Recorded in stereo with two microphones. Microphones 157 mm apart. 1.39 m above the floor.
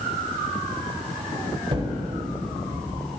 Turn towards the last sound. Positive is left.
turn(degrees=-40)  # may be behind; listen again after turning